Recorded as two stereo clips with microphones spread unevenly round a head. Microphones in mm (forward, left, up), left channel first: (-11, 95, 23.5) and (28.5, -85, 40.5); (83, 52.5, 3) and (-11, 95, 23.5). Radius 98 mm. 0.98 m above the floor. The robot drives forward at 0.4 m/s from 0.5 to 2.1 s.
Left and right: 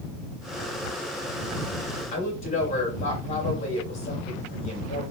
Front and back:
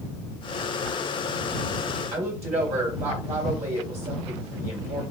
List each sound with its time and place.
2.1 s a woman speaking: 160° left, 2.5 m